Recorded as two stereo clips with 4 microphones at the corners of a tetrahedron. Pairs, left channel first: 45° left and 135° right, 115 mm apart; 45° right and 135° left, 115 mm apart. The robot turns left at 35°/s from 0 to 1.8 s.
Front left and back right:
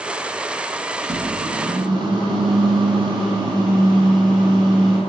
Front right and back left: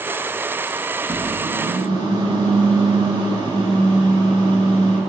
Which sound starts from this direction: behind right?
A microwave, at 1.0 s.